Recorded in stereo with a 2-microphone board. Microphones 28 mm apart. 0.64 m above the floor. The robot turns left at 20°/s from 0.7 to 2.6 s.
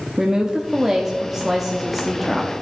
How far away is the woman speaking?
About 0.6 m.